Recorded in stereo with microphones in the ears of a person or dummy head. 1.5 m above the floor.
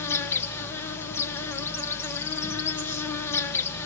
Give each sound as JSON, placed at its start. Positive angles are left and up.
{"t": 0.0, "sound": "an insect", "side_deg": 10, "distance_m": 1.7}